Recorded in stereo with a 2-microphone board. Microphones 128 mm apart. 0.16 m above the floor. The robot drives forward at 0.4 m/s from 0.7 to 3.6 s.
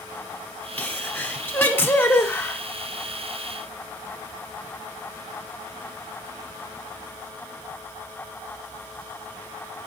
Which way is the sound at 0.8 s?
15° left (ahead or behind).